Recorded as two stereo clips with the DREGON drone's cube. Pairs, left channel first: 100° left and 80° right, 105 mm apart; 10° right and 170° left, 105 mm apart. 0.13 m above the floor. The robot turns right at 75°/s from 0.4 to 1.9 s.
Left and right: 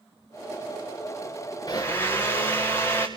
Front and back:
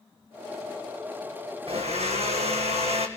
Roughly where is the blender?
Behind left.